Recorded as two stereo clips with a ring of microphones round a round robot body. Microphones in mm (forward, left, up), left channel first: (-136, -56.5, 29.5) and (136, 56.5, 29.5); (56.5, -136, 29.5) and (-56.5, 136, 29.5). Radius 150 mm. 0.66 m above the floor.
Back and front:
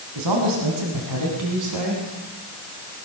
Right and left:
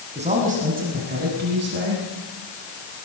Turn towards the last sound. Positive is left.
turn(degrees=60)